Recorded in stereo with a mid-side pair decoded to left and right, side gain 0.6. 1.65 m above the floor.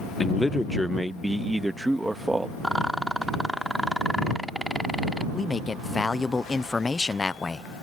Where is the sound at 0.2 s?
15° left; by 2.5 s 15° right.